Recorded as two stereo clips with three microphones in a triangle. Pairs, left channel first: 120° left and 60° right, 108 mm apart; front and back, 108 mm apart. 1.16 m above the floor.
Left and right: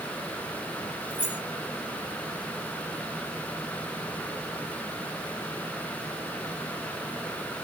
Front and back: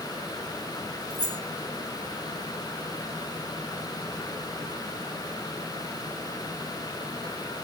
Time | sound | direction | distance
1.1 | keys jangling | 135° right | 2 m